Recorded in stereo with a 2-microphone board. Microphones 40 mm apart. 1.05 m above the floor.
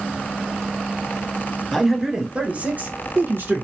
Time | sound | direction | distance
1.7 | a man speaking | 5° left (ahead or behind) | 0.9 m